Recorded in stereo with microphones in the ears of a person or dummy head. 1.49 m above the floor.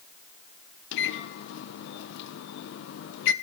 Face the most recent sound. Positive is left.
turn(degrees=65)  # may be behind; listen again after turning